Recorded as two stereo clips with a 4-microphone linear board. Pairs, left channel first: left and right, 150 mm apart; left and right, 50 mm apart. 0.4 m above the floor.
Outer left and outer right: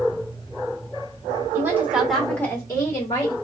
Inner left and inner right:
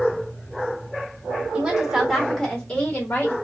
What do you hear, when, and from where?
1.5 s a woman speaking: 20° right (ahead or behind), 1.3 m; by 3.3 s 40° left (ahead or behind), 1.4 m